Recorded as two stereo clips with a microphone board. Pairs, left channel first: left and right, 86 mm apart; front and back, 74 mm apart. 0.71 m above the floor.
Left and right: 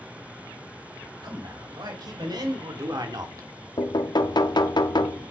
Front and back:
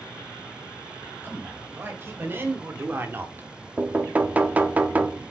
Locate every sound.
1.2 s a man speaking: 120° right, 4.5 m; by 3.5 s 125° right, 1.5 m
3.8 s knocking: 115° left, 0.8 m